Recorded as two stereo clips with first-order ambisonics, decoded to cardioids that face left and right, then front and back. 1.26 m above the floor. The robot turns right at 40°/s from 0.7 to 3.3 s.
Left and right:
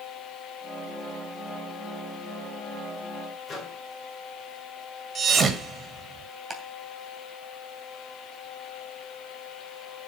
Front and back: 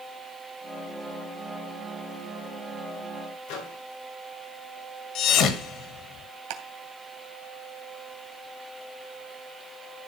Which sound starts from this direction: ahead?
A microwave, at 3.5 s.